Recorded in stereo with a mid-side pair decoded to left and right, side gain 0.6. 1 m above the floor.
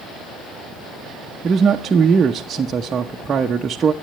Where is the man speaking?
30° right, 0.8 m.